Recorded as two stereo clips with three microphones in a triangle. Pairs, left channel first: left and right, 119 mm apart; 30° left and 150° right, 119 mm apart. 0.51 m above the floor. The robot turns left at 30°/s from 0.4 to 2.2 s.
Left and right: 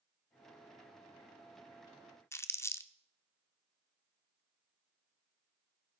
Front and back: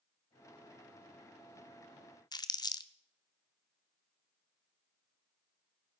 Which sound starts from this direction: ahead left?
Crumpling, at 2.3 s.